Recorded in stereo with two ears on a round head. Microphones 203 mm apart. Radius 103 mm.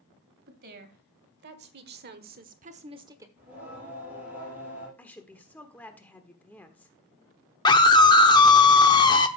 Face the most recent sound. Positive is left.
turn(degrees=20)  # may be behind; listen again after turning